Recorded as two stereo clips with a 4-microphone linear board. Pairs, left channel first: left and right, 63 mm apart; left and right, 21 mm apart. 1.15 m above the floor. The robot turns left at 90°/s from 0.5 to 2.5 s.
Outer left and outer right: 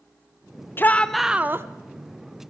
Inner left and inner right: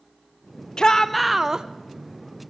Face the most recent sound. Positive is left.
turn(degrees=-120)